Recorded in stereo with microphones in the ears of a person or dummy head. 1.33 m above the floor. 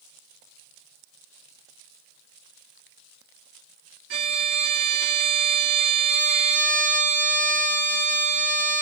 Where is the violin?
70° right (ahead or behind), 1.3 m.